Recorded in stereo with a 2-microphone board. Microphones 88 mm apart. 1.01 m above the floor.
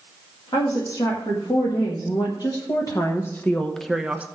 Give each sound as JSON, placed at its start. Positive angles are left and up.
{"t": 0.5, "sound": "a woman speaking", "side_deg": 60, "distance_m": 2.5}